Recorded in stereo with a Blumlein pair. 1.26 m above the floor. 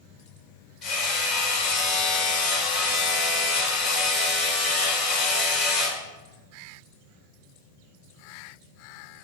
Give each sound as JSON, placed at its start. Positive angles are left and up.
{"t": 0.8, "sound": "hammering", "azimuth_deg": 35, "distance_m": 4.0}